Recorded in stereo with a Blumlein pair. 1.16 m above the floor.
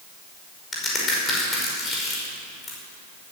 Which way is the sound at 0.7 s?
20° left.